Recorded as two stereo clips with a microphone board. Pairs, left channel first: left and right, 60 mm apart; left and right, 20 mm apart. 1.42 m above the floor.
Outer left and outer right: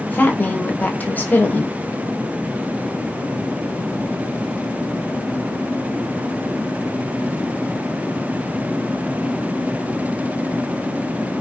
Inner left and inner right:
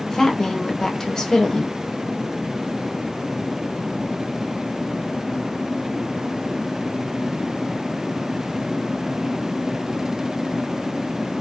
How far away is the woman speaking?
About 0.5 m.